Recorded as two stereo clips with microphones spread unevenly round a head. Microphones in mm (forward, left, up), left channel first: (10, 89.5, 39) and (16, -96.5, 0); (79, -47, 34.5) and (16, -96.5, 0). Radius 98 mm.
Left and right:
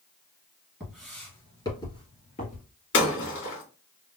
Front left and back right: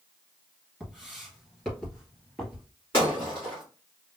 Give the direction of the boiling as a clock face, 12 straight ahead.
I don't hear boiling.